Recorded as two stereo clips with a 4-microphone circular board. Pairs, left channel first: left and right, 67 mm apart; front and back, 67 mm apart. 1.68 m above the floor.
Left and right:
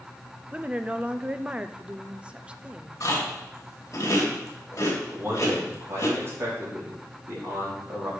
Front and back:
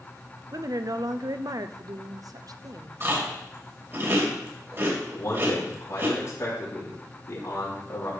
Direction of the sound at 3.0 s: 135° left.